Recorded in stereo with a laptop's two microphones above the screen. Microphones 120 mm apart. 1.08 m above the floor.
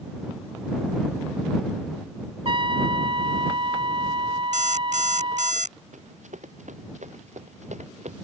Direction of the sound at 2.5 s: 50° right (ahead or behind).